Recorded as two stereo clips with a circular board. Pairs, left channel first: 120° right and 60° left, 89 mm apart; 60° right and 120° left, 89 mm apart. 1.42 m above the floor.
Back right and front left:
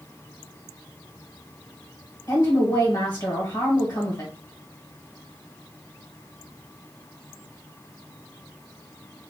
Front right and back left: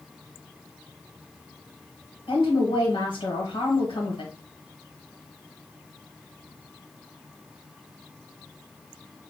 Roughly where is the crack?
No crack in this recording.